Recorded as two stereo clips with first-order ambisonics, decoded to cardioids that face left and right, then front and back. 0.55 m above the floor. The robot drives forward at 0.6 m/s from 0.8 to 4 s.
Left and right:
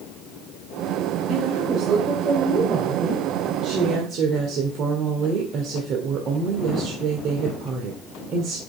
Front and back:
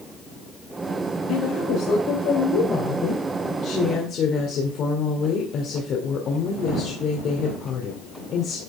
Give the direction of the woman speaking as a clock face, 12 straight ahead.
1 o'clock.